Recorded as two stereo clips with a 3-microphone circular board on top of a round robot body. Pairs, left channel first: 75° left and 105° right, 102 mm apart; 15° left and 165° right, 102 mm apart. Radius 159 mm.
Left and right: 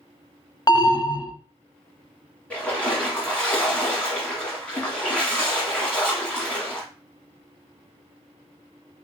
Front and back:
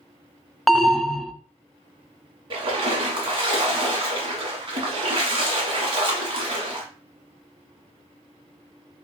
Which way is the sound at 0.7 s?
105° left.